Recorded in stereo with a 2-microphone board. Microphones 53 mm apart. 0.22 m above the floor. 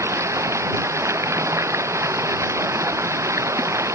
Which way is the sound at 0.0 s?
65° right (ahead or behind).